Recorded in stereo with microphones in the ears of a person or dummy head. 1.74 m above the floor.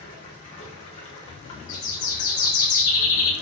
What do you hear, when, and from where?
0.0 s running water: 25° left (ahead or behind), 0.8 m
1.7 s a bird: 45° left (ahead or behind), 1.4 m